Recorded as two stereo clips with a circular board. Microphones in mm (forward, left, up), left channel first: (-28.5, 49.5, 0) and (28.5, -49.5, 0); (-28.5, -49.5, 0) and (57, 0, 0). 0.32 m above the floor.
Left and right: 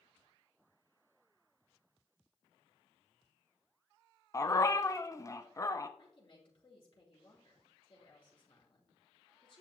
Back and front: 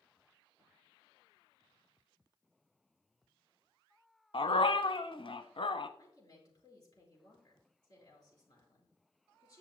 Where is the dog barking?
Straight behind, 0.7 m.